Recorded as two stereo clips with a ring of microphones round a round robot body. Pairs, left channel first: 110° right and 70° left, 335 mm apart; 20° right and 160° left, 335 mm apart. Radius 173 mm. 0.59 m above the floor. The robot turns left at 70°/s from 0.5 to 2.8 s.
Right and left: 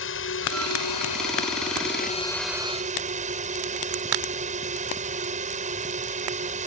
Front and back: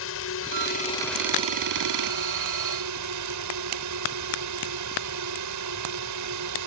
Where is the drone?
65° right; by 6.7 s 135° left.